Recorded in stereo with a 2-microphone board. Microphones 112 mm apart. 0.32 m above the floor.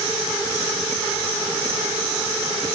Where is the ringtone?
No ringtone in this recording.